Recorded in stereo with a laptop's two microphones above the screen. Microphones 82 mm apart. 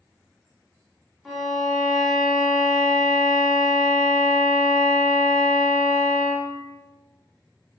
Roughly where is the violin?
Centre.